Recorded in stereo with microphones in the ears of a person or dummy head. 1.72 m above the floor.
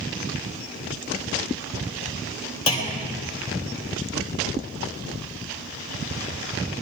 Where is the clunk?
30° left (ahead or behind), 2.5 m.